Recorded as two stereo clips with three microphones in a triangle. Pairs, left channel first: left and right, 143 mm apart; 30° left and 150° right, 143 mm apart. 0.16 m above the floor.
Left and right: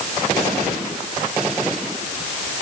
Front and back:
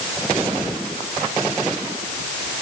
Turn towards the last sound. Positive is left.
No sound to turn to.